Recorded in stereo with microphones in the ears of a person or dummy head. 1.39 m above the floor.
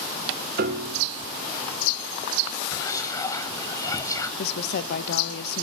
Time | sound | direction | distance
0.6 | a piano | 55° right (ahead or behind) | 1.6 m
2.7 | whispering | 20° left (ahead or behind) | 1.6 m
4.4 | a woman speaking | 65° left (ahead or behind) | 1.0 m